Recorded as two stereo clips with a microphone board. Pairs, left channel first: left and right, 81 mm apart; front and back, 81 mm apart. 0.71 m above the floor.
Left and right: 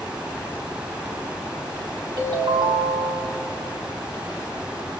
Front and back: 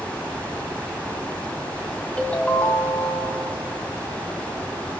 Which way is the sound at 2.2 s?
75° right.